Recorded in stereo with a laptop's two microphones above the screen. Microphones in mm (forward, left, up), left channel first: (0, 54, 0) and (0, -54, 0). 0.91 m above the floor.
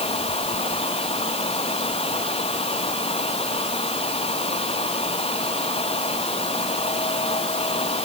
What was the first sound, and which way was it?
A fan, 70° left (ahead or behind).